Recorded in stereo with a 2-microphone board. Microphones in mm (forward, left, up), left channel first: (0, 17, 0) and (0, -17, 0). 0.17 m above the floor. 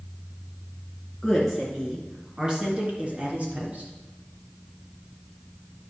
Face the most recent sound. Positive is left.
turn(degrees=-50)  # may be behind; listen again after turning